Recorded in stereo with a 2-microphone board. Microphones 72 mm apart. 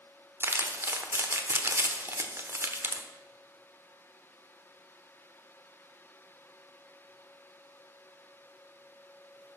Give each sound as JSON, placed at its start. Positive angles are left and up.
{"t": 0.4, "sound": "crumpling", "side_deg": -30, "distance_m": 1.1}